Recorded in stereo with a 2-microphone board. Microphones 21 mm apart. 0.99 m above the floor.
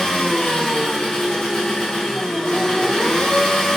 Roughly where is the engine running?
Left.